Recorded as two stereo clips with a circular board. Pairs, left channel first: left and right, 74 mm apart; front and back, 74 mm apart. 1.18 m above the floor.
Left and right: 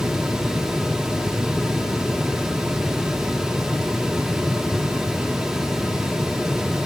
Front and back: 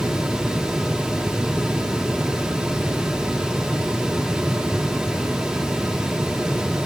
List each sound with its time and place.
Only background noise.